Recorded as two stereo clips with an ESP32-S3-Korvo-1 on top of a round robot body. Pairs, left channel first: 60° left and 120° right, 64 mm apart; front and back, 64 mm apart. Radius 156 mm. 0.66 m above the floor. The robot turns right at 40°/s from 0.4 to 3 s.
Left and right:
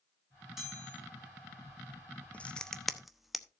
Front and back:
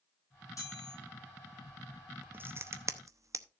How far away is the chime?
About 9 m.